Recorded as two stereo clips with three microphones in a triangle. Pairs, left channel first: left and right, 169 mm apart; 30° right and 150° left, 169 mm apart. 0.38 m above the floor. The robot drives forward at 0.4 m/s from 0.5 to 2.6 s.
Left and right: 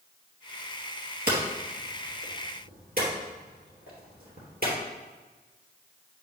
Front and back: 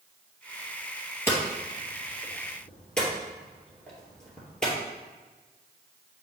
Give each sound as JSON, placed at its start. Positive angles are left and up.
{"t": 1.3, "sound": "hammering", "azimuth_deg": -105, "distance_m": 2.5}